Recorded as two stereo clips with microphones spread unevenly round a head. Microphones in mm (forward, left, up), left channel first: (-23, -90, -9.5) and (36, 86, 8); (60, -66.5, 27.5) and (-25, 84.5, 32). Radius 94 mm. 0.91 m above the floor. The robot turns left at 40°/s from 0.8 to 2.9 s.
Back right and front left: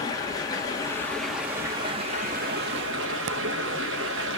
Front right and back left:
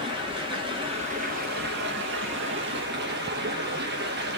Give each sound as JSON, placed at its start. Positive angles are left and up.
{"t": 0.0, "sound": "running water", "azimuth_deg": 180, "distance_m": 1.4}